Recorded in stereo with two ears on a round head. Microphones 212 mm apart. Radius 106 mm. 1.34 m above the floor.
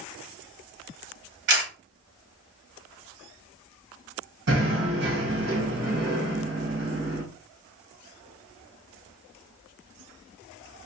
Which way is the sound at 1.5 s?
50° right (ahead or behind).